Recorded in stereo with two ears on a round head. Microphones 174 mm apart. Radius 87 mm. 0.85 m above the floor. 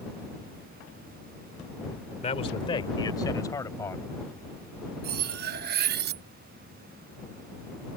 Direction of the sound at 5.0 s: 50° right (ahead or behind).